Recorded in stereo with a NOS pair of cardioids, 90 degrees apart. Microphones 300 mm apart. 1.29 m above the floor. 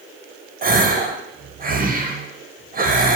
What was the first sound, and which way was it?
A gasp, 30° right.